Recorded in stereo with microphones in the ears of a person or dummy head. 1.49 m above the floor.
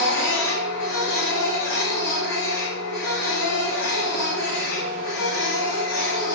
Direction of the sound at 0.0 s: 60° left (ahead or behind).